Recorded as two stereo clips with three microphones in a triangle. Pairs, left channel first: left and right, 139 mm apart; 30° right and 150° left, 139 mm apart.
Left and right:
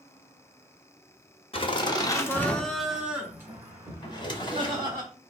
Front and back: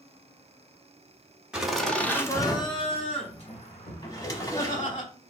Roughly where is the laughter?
Left.